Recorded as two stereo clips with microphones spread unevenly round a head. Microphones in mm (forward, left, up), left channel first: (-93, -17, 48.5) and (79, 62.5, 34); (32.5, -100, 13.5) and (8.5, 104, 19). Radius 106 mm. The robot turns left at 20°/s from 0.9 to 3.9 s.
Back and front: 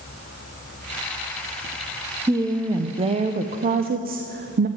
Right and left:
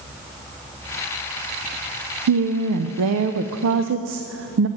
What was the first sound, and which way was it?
A woman speaking, 100° left.